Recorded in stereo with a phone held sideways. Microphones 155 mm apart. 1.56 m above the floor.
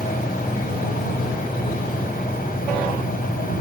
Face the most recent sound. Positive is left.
turn(degrees=70)  # may be behind; listen again after turning